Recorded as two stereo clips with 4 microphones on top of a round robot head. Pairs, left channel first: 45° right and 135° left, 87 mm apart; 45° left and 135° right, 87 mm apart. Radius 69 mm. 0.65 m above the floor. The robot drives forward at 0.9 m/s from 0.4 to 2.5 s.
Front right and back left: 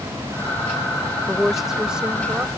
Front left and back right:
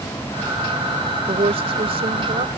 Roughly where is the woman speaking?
Behind right.